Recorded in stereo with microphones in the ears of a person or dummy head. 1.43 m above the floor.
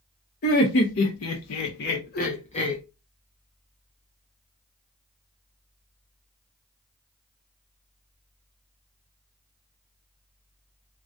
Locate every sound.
0.4 s laughter: 55° left (ahead or behind), 0.8 m; by 2.8 s 30° left (ahead or behind), 1.0 m